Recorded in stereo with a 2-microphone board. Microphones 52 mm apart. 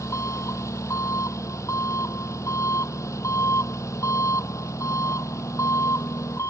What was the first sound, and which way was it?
An engine running, 65° left (ahead or behind).